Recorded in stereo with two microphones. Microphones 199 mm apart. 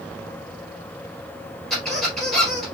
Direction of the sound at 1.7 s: Centre (ahead or behind).